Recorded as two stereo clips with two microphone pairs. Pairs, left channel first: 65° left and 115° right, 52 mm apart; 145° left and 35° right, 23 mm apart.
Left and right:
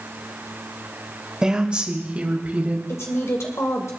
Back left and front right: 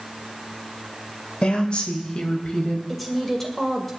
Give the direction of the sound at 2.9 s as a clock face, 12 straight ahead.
10 o'clock.